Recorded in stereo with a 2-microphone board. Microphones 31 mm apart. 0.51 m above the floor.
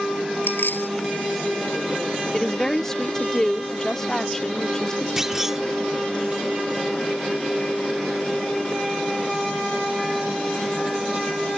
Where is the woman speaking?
15° left (ahead or behind).